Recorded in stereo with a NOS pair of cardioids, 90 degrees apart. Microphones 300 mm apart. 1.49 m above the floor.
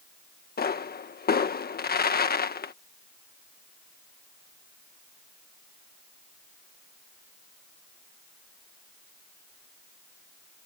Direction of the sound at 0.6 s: 30° left.